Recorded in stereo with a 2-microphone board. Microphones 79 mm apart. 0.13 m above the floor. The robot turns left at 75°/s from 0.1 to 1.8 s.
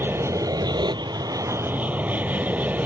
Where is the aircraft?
30° right; by 2.9 s 155° right.